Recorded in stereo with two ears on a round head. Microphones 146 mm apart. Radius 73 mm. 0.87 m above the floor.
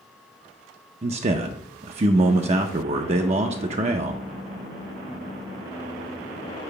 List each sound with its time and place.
1.0 s a man speaking: 40° right (ahead or behind), 0.5 m